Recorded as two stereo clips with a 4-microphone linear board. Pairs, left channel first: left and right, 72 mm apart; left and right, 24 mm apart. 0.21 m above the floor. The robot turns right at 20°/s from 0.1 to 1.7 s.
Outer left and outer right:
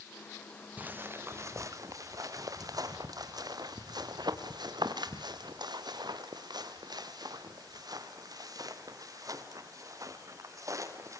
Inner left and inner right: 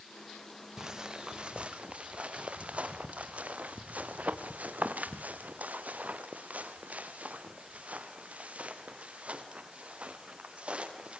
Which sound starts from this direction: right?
Footsteps, at 0.8 s.